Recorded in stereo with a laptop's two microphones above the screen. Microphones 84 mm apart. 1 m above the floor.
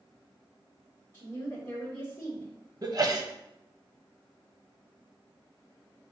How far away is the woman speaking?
About 2.5 m.